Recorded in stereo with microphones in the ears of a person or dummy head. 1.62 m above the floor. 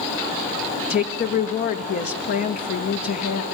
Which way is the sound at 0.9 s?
55° left (ahead or behind).